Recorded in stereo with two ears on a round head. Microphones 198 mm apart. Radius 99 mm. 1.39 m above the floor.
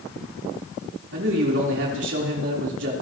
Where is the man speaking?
55° right (ahead or behind), 4 m.